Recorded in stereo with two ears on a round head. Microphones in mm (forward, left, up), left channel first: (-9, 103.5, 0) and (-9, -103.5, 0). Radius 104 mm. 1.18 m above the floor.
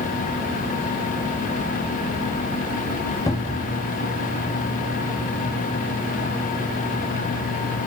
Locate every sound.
3.3 s a cupboard door: 15° left (ahead or behind), 1.0 m